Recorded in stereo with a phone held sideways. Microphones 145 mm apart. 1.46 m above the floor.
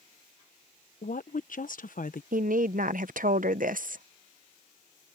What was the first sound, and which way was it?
A woman speaking, 65° left (ahead or behind).